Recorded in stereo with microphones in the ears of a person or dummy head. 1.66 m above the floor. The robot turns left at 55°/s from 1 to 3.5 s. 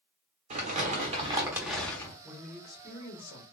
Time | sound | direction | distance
0.5 | crumpling | 135° right | 0.8 m
2.2 | a man speaking | 175° right | 1.1 m